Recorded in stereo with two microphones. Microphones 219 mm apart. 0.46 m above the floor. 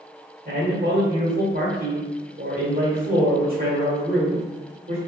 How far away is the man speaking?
About 1.4 m.